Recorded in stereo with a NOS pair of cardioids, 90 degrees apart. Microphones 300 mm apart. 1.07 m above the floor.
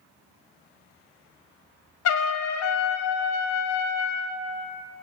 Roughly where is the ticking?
I don't hear ticking.